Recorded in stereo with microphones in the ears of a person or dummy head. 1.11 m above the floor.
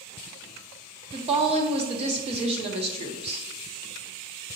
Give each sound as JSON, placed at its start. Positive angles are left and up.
{"t": 1.1, "sound": "a woman speaking", "side_deg": -35, "distance_m": 0.6}